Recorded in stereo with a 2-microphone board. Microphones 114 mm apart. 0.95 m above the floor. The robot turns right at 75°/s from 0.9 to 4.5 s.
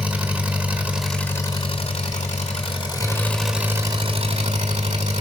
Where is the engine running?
10° right, 1.8 m; by 5.2 s 100° right, 1.8 m.